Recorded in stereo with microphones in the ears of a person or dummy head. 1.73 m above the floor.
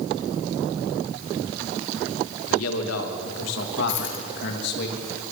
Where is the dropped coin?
70° left (ahead or behind), 8 m.